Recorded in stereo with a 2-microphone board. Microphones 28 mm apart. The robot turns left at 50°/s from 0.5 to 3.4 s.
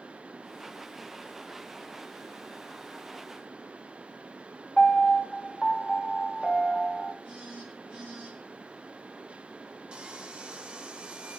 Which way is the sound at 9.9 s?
40° right (ahead or behind).